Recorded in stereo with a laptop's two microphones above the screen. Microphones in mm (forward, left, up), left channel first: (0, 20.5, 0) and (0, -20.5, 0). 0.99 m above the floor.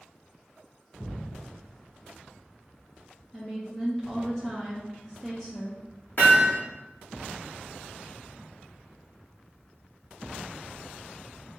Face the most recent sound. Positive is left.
turn(degrees=55)  # may be behind; listen again after turning